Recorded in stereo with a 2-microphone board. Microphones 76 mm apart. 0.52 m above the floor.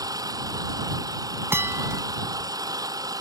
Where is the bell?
35° right (ahead or behind).